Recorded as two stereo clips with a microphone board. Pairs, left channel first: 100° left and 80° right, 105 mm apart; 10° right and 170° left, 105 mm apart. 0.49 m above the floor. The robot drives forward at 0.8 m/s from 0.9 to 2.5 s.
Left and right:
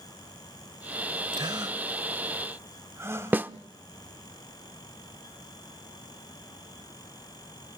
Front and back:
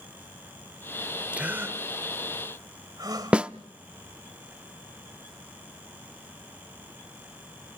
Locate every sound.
1.3 s a gasp: 115° right, 1.4 m; by 3.4 s 140° right, 1.9 m
3.3 s a snare drum: 125° right, 0.6 m